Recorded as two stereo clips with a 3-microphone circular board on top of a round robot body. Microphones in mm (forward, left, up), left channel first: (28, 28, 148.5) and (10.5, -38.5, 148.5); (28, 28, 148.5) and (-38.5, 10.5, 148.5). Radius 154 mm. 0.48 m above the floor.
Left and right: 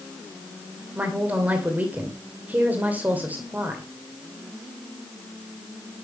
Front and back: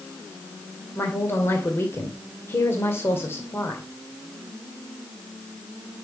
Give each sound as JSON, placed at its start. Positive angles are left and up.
{"t": 0.9, "sound": "a woman speaking", "azimuth_deg": -40, "distance_m": 2.5}